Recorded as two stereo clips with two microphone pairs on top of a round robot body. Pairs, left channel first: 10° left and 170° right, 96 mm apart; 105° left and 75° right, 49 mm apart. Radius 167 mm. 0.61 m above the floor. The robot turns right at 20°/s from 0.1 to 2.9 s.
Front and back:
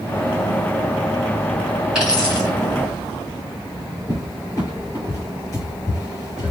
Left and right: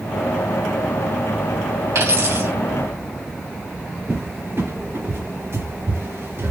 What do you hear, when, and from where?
1.9 s a dropped coin: 90° right, 3 m; by 2.5 s 80° right, 3 m
4.1 s a cupboard door: 45° right, 3 m